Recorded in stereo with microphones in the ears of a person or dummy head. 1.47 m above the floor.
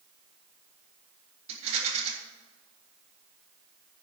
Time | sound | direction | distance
1.5 | a rattle | 35° right (ahead or behind) | 3.5 m